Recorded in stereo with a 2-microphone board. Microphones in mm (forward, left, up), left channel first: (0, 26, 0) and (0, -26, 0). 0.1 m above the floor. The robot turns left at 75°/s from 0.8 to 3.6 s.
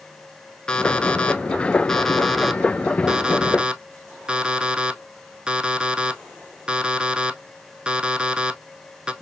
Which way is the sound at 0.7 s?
15° left (ahead or behind).